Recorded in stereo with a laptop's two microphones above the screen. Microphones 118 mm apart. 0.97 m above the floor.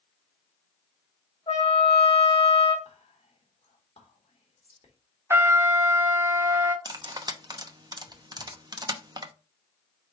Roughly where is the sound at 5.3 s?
Centre.